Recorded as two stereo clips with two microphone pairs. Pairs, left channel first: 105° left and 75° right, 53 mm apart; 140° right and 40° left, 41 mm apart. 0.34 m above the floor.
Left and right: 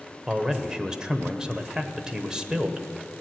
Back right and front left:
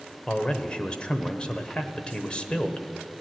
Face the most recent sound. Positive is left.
turn(degrees=-130)